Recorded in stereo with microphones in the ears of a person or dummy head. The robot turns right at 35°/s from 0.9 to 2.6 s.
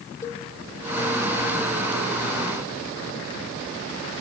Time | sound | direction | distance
0.2 | a cowbell | 15° left (ahead or behind) | 1.1 m